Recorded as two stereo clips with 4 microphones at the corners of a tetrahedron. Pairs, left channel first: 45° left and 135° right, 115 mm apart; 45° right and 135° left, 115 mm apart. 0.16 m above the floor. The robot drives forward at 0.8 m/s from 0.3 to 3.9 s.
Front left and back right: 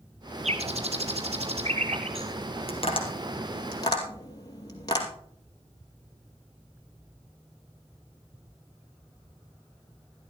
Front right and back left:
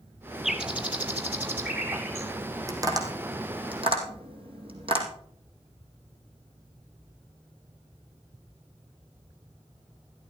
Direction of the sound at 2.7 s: 75° left.